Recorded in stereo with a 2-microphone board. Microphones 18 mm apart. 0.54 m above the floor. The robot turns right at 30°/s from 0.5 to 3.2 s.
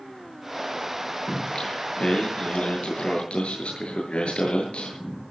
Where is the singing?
40° left, 8.5 m; by 5.2 s 100° left, 8.5 m.